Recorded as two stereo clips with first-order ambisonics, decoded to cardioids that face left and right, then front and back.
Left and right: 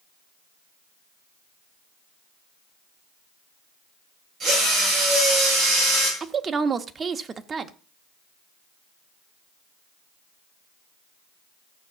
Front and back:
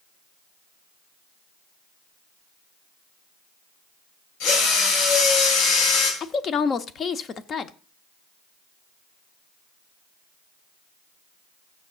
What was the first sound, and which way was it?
A drill, 20° right.